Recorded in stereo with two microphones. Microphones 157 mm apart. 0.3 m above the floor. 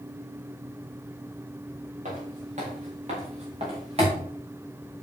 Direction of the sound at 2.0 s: 50° right (ahead or behind).